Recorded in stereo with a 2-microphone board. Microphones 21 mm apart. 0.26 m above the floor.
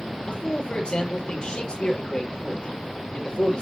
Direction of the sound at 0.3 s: 45° left (ahead or behind).